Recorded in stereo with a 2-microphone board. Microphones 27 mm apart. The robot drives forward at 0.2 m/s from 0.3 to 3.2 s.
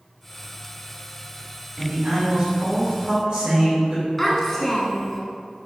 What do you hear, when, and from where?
1.8 s a man speaking: 35° right (ahead or behind), 2.0 m
4.2 s a child speaking: 10° left (ahead or behind), 0.6 m